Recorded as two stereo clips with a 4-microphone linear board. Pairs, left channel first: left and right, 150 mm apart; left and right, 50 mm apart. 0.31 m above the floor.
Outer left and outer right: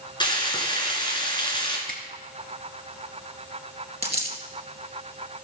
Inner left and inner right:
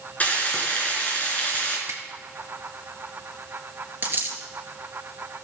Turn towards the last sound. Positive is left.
turn(degrees=-40)  # may be behind; listen again after turning